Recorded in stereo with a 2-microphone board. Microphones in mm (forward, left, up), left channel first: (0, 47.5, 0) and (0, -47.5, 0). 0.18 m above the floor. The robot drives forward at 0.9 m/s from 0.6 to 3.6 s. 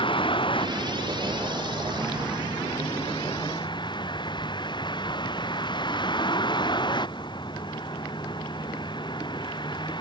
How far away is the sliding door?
No sliding door in this recording.